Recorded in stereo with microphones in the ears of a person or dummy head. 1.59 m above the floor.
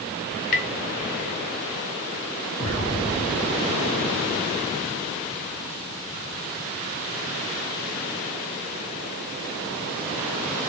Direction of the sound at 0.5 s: 40° left (ahead or behind).